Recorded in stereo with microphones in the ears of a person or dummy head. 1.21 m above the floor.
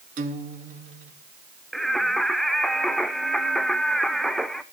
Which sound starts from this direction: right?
A guitar, at 0.2 s.